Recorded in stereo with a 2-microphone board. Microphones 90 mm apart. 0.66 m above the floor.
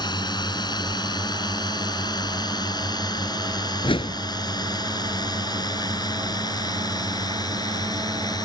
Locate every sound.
0.0 s a drone: 50° left (ahead or behind); by 8.5 s 45° left (ahead or behind)
3.8 s a whoosh: 75° left (ahead or behind)